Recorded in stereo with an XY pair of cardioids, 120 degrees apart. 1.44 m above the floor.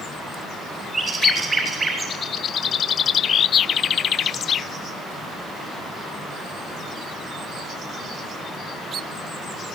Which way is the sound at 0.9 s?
25° right.